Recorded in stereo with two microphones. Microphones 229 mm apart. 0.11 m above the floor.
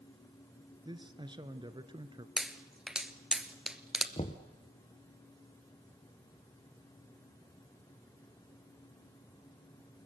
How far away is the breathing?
No breathing in this recording.